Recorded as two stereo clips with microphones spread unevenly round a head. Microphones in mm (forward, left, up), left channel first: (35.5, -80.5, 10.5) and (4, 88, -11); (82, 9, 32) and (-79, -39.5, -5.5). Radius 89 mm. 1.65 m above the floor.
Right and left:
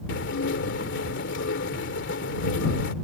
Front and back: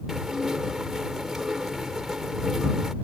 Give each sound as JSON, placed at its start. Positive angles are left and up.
{"t": 0.1, "sound": "dishes clattering", "azimuth_deg": -70}